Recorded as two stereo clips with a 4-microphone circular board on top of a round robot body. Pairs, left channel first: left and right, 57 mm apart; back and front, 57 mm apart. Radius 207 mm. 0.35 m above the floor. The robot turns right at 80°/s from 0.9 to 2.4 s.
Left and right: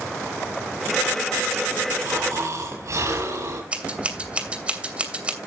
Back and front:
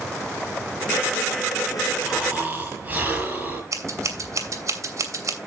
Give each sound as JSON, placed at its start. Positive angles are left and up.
{"t": 2.0, "sound": "snoring", "azimuth_deg": -90, "distance_m": 8.0}
{"t": 3.7, "sound": "scissors", "azimuth_deg": -25, "distance_m": 3.5}